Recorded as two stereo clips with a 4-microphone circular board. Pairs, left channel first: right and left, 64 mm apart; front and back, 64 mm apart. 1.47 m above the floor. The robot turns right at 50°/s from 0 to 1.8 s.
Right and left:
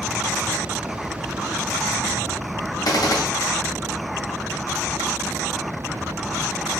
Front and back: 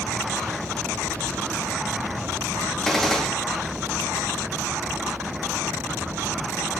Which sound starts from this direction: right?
A gunshot, at 2.9 s.